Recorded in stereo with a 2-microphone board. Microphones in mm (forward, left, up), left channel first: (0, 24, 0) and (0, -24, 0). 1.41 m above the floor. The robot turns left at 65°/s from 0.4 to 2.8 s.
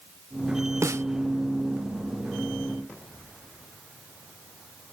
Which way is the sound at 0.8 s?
85° right.